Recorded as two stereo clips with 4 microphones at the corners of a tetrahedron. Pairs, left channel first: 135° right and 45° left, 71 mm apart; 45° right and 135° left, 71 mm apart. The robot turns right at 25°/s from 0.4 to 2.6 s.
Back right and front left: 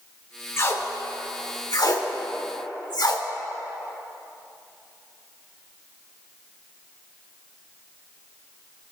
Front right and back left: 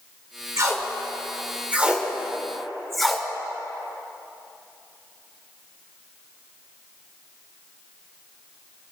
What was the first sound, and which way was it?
Tape being pulled, 175° left.